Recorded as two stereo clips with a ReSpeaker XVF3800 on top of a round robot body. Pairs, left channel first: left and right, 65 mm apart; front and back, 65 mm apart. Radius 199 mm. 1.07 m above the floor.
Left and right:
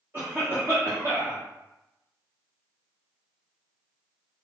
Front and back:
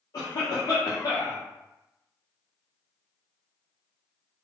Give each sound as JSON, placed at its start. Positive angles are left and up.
{"t": 0.1, "sound": "a cough", "azimuth_deg": -30, "distance_m": 0.9}